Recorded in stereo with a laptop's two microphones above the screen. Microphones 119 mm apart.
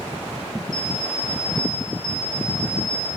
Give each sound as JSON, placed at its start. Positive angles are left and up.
{"t": 0.7, "sound": "an alarm clock", "side_deg": 45, "distance_m": 2.0}